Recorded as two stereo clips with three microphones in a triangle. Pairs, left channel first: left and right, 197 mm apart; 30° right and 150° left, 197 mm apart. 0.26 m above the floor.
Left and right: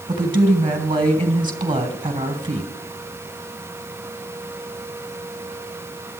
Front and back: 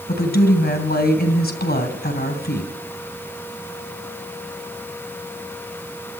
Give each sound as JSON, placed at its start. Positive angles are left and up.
{"t": 0.1, "sound": "a woman speaking", "azimuth_deg": -30, "distance_m": 2.5}